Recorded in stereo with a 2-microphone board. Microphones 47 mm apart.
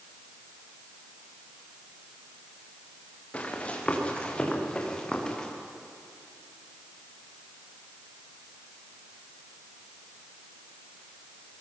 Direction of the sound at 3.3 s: 25° left (ahead or behind).